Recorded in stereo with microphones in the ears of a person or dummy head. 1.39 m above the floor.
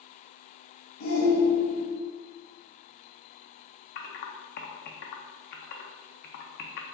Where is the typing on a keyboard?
55° left (ahead or behind), 0.6 m.